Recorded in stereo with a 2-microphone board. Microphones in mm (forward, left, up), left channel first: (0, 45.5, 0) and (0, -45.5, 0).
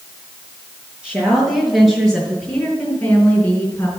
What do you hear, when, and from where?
1.0 s a woman speaking: 10° right (ahead or behind), 6 m; by 3.9 s 20° left (ahead or behind), 4 m